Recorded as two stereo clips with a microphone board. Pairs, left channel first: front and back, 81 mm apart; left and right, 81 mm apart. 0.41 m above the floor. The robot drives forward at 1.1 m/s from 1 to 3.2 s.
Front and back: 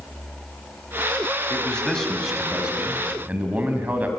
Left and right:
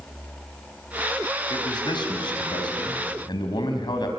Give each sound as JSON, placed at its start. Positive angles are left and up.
{"t": 1.5, "sound": "a man speaking", "azimuth_deg": 75, "distance_m": 3.5}